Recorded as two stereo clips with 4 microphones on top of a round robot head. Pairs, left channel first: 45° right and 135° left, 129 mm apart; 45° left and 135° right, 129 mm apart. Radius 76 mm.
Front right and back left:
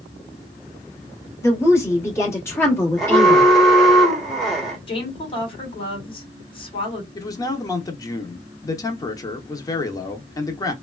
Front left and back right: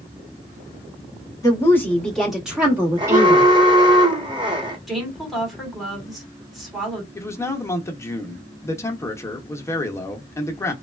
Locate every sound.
1.4 s a woman speaking: 5° left, 1.5 m; by 3.5 s 110° right, 1.5 m
3.0 s an alarm: 135° right, 1.2 m
4.9 s a woman speaking: 45° right, 1.6 m
7.2 s a man speaking: 5° right, 0.8 m